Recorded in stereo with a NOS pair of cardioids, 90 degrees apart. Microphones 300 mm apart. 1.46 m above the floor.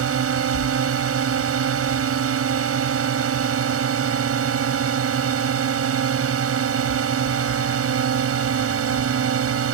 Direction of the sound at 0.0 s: 50° right.